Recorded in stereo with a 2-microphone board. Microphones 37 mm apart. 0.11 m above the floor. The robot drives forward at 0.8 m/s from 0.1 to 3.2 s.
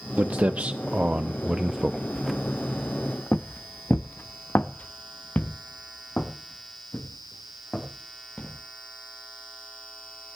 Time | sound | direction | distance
0.2 | footsteps | 45° right (ahead or behind) | 1.1 m